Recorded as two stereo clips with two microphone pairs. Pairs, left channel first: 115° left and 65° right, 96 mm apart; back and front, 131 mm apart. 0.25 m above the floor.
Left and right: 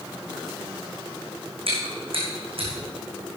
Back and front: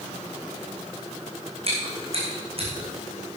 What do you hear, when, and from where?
1.7 s chewing: 45° right, 4 m